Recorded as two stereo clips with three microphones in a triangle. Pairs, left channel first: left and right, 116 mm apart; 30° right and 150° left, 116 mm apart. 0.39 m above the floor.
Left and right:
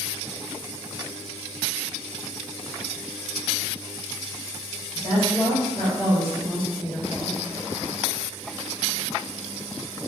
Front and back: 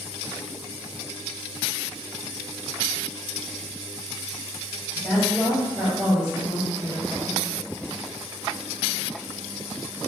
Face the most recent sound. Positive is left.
turn(degrees=135)